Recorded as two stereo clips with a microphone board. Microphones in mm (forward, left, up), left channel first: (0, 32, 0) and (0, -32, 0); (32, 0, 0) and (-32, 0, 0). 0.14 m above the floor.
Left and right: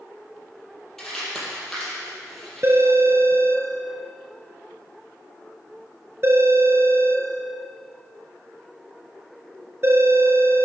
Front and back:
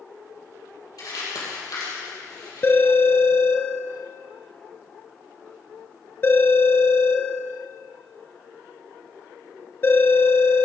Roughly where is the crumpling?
Ahead.